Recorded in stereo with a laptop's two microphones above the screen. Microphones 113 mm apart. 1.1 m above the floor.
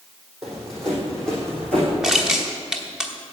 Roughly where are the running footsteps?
Centre.